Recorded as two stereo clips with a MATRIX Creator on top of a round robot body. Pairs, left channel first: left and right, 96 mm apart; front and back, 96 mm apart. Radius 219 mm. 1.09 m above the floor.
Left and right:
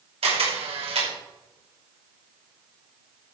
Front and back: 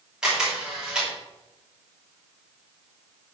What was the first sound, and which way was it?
A camera shutter, 95° right.